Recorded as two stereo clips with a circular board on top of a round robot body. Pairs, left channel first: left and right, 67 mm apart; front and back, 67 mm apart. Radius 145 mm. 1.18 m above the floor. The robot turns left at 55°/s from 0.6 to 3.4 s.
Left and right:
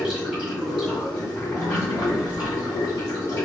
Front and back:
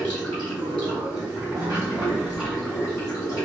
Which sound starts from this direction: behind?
Running water, at 0.0 s.